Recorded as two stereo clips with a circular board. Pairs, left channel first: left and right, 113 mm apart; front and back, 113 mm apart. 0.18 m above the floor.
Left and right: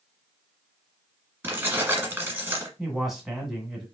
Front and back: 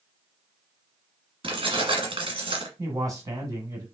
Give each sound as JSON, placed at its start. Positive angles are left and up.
{"t": 1.4, "sound": "keys jangling", "azimuth_deg": -155, "distance_m": 1.6}
{"t": 2.8, "sound": "a man speaking", "azimuth_deg": -175, "distance_m": 1.7}